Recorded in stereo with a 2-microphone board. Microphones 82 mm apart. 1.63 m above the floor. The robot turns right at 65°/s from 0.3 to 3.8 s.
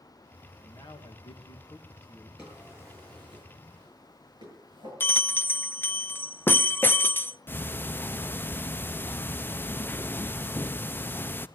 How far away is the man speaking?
About 2 m.